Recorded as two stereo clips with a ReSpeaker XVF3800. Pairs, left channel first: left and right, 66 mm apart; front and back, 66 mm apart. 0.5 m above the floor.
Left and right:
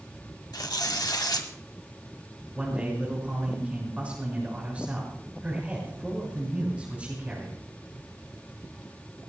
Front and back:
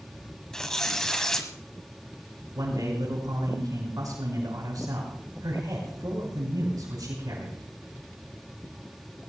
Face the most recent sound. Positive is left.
turn(degrees=-160)